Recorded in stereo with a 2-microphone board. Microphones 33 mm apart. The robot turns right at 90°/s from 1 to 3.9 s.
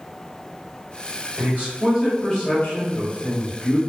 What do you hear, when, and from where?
1.4 s a man speaking: 70° right, 1.4 m; by 3.8 s 145° left, 1.4 m